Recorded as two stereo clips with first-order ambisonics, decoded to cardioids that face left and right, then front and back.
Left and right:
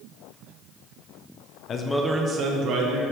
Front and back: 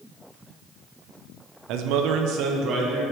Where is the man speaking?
145° left, 0.7 m; by 3.0 s 130° right, 1.6 m.